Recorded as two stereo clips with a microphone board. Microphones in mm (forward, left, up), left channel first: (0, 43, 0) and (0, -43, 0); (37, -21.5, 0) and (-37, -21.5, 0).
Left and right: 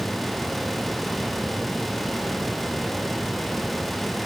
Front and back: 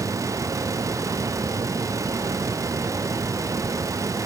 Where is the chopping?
I don't hear chopping.